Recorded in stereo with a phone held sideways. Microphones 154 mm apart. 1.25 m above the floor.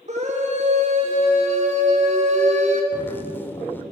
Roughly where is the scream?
Right.